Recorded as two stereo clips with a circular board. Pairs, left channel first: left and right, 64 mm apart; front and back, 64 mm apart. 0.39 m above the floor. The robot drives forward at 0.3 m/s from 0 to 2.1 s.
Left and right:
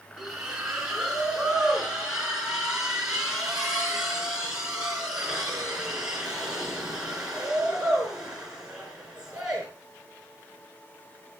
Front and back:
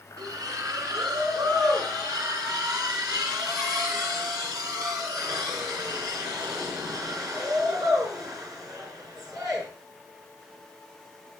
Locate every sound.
0.2 s a splash: 170° right, 5 m